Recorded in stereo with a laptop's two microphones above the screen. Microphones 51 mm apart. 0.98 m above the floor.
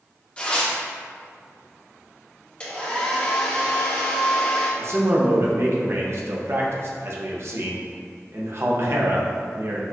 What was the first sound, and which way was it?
Tearing paper, 20° left (ahead or behind).